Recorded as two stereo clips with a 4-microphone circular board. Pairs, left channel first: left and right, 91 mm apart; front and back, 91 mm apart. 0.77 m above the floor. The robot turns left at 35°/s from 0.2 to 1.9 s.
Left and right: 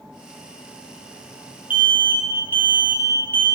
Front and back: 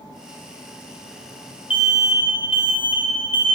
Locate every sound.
1.7 s an alarm: 20° right, 0.7 m; by 3.5 s 25° right, 0.7 m